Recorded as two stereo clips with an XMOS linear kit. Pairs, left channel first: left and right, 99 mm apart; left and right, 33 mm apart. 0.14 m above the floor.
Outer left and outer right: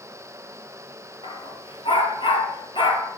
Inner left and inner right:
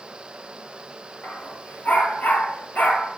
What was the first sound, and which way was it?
A dog barking, 60° left (ahead or behind).